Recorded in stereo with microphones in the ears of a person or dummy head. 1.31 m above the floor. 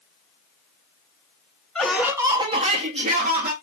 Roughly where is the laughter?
Centre.